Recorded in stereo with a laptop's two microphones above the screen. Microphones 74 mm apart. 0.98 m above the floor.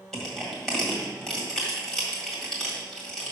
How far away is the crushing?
About 1.6 m.